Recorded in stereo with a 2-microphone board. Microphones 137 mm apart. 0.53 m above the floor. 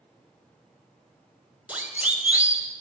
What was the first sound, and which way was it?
A siren, 10° right (ahead or behind).